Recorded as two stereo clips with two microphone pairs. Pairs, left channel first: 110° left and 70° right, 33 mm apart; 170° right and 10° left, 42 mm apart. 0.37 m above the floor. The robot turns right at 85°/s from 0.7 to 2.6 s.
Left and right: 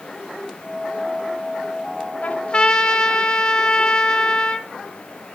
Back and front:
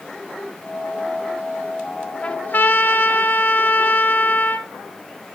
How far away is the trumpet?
About 0.9 m.